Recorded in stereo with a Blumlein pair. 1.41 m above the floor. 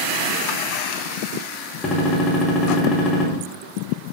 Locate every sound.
1.8 s a gunshot: 20° left, 1.0 m